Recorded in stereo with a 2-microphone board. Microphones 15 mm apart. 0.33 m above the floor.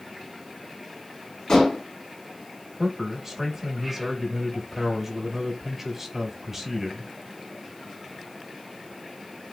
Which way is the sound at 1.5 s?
60° left (ahead or behind).